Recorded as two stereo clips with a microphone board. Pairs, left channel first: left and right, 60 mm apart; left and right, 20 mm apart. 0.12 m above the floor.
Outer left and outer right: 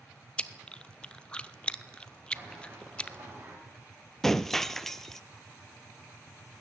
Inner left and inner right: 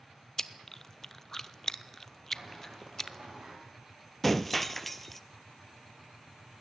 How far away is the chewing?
About 0.7 m.